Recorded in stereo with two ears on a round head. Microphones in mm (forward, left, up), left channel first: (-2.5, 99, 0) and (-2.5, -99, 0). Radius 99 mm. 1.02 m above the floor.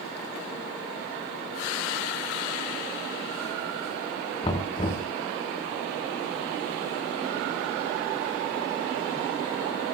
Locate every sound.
4.4 s knocking: 30° left (ahead or behind), 2 m